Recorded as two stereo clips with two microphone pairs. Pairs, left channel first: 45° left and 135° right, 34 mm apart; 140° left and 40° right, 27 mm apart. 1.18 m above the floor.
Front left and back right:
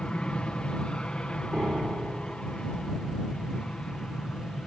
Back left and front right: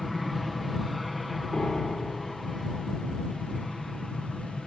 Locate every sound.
0.0 s an aircraft: 45° left
1.5 s a piano: straight behind